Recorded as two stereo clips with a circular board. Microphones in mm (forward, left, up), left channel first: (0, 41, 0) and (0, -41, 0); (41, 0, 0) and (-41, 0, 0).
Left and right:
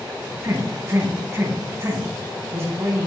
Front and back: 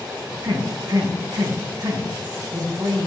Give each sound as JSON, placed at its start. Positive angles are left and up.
{"t": 0.4, "sound": "a man speaking", "azimuth_deg": -145, "distance_m": 4.0}